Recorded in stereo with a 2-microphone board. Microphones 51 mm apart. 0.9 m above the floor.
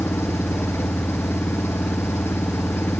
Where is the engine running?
55° left (ahead or behind).